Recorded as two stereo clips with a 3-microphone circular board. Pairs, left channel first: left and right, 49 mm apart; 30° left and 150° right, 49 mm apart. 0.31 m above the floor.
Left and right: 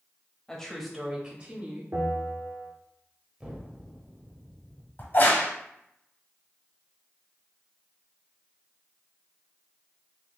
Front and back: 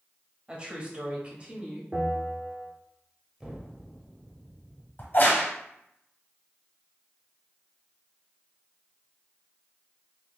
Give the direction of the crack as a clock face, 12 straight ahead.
10 o'clock.